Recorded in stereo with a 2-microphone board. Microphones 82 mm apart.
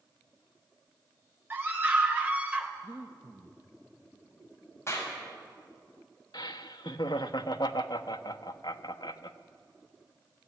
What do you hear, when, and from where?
1.5 s a scream: 25° right (ahead or behind), 3 m; by 2.7 s 15° right (ahead or behind), 3 m
2.8 s breathing: 25° right (ahead or behind), 1.1 m
4.9 s a clap: 35° left (ahead or behind), 5.5 m
6.3 s laughter: 70° left (ahead or behind), 1.0 m